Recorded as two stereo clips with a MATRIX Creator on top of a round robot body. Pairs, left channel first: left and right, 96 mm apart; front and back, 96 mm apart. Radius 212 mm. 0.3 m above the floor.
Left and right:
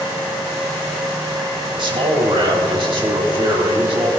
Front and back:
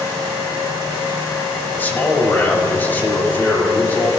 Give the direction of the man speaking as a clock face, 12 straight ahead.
2 o'clock.